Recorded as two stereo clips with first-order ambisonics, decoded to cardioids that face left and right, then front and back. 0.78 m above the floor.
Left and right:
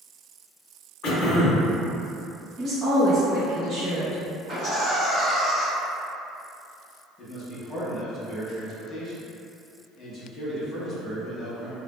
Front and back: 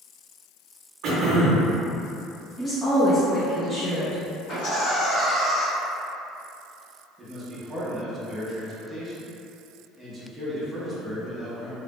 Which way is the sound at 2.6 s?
50° right.